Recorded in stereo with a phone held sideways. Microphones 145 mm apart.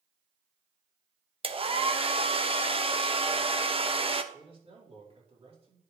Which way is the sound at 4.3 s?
45° right (ahead or behind).